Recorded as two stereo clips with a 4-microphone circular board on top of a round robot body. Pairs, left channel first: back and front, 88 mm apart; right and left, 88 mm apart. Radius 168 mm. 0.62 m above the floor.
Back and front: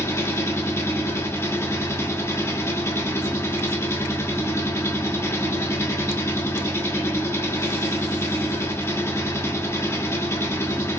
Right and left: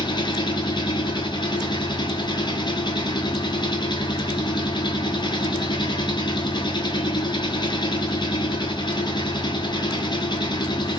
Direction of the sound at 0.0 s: 120° right.